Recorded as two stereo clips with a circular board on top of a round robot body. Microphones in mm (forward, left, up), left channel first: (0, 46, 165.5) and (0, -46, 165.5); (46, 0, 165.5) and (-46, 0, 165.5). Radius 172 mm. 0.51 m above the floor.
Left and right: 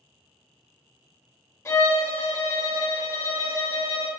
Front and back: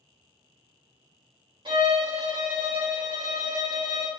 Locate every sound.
1.6 s a violin: 150° left, 2 m